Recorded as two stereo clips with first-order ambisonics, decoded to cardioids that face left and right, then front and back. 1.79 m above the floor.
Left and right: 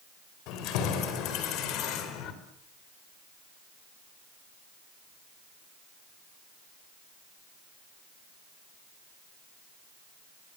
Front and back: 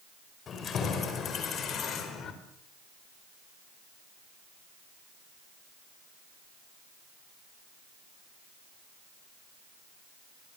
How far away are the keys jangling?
About 5 m.